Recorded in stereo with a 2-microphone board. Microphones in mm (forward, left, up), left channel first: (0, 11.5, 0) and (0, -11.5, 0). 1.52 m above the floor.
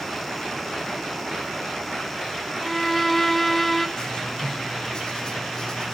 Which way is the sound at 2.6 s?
5° left (ahead or behind).